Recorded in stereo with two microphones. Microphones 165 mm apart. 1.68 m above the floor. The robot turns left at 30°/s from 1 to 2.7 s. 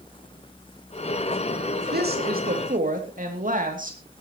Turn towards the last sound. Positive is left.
turn(degrees=-55)  # may be behind; listen again after turning